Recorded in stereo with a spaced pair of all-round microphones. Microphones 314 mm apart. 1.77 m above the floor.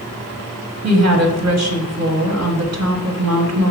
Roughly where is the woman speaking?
Right.